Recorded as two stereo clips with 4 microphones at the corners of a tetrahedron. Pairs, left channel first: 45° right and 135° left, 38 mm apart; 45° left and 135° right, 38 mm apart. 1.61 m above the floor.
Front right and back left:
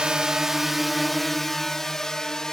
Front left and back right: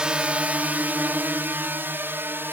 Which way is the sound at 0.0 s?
175° right.